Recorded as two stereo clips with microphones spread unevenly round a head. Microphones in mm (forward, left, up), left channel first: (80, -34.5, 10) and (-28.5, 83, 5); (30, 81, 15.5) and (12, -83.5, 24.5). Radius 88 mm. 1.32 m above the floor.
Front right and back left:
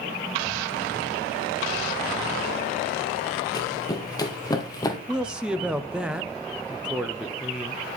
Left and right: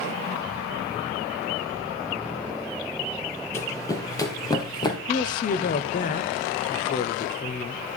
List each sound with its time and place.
3.5 s running footsteps: 10° left, 1.8 m; by 5.0 s 15° left, 2.5 m
5.1 s a man speaking: 50° left, 0.8 m